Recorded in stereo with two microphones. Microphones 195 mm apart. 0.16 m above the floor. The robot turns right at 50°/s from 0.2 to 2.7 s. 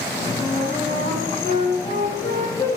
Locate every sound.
0.4 s a flute: 45° left, 3.5 m; by 2.7 s 160° left, 3.5 m